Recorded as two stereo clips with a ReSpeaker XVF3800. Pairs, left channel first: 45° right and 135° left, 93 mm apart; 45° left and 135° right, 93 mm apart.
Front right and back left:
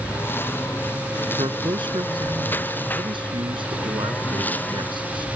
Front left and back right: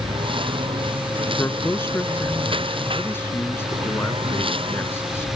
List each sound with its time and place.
0.0 s a lawn mower: 110° right; by 5.4 s 120° right
1.4 s a man speaking: 110° left